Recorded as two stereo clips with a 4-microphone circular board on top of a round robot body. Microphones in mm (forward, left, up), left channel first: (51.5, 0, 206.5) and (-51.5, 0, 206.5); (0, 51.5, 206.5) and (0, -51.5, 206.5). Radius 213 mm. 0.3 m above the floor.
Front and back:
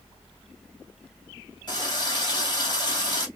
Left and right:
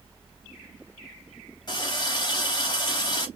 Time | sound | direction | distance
1.7 | a running tap | 45° left | 2.5 m